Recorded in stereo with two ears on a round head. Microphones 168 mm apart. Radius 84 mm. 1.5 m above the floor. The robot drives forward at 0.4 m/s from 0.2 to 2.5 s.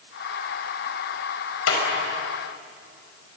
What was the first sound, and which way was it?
A clap, 85° left.